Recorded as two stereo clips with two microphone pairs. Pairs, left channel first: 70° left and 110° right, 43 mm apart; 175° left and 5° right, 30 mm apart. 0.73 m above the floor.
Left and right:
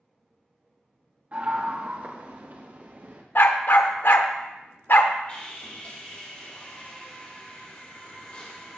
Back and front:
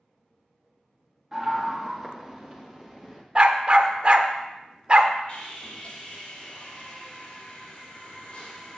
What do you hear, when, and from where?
1.3 s a scream: 90° right, 1.2 m; by 3.2 s 110° right, 2 m
3.4 s a dog barking: 45° left, 0.8 m
5.3 s sawing: 125° left, 3 m